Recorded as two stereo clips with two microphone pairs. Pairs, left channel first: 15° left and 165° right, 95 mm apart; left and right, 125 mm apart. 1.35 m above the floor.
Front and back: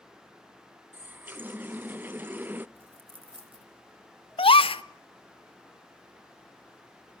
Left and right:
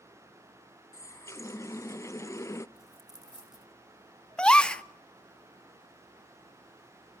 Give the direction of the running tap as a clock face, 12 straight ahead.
8 o'clock.